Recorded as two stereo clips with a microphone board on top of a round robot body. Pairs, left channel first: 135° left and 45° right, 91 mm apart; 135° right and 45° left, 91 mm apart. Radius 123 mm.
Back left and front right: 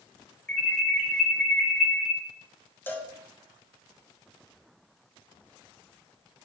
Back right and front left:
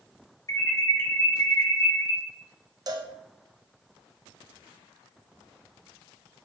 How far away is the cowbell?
About 0.6 m.